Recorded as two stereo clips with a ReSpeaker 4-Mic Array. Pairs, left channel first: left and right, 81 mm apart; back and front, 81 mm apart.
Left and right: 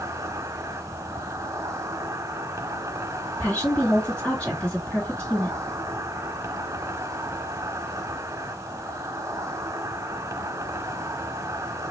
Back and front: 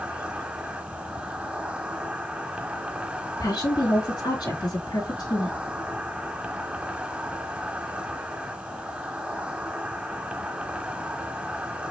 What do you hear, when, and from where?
0.0 s an insect: 70° right, 1.0 m
3.4 s a woman speaking: 165° left, 3.5 m